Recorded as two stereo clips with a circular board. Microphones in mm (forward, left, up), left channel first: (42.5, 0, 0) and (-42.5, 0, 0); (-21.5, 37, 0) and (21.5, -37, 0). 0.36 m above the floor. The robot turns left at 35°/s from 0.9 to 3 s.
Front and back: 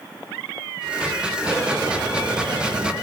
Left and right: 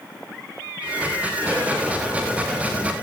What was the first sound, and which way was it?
A rattle, 120° right.